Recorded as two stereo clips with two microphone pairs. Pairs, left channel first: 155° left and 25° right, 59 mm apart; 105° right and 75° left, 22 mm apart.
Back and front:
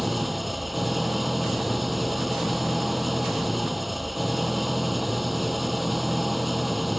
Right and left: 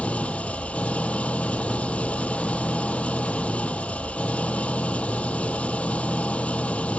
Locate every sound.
0.0 s an engine running: 115° right